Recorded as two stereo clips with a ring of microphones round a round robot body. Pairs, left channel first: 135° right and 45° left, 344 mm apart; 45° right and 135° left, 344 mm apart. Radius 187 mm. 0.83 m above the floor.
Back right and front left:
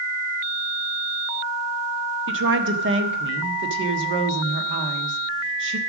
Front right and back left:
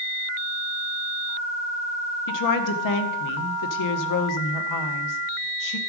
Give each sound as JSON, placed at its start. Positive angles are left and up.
{"t": 2.3, "sound": "a woman speaking", "azimuth_deg": -10, "distance_m": 1.4}